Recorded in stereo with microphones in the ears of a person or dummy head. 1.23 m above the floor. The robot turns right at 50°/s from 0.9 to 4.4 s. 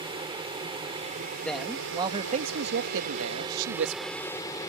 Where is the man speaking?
175° left; by 4.1 s 50° right.